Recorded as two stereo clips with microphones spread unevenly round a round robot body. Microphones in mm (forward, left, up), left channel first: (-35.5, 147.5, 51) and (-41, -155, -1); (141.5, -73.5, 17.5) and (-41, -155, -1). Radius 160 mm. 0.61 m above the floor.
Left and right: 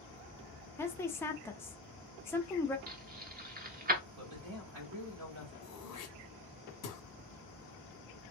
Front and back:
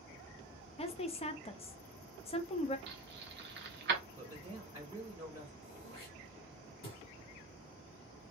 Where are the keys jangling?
145° right, 1.0 m.